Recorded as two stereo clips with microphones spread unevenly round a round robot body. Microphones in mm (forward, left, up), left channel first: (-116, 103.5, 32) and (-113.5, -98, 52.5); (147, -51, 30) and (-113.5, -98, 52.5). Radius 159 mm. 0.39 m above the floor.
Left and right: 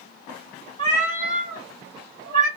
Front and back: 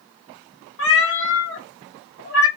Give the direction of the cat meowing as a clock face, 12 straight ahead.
1 o'clock.